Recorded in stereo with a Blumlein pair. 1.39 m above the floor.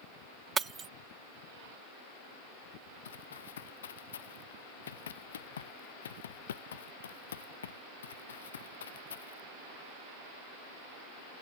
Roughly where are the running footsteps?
Ahead left.